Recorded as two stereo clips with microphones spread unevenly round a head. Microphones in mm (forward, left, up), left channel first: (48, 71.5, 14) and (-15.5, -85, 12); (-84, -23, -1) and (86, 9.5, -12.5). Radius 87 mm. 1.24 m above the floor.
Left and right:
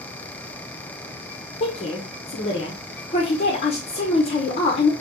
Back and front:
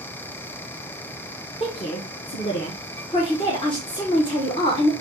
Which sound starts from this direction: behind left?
A woman speaking, at 1.6 s.